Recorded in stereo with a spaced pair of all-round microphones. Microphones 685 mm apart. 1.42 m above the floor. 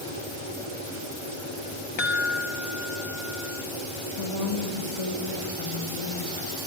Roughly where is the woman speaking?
Left.